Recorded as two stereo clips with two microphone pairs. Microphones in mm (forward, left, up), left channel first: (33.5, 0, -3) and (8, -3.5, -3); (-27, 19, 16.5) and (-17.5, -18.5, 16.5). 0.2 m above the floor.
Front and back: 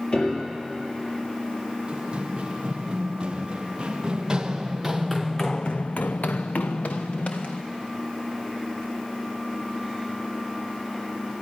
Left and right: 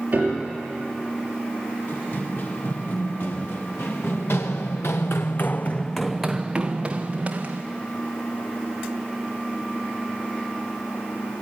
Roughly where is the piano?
Ahead right.